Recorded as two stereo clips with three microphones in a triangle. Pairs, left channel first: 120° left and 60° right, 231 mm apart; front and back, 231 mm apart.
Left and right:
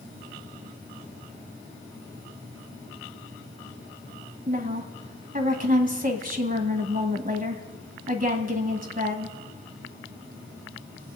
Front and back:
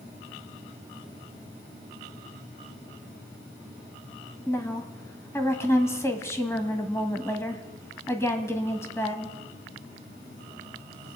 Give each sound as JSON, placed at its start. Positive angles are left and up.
{"t": 4.5, "sound": "a woman speaking", "azimuth_deg": -70, "distance_m": 1.5}